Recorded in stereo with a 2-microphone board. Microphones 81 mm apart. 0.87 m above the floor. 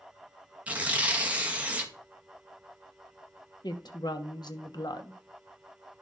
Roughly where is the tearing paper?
Centre.